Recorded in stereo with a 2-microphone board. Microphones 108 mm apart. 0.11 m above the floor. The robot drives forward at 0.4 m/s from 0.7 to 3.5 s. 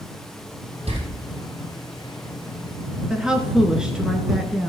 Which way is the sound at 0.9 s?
70° right (ahead or behind).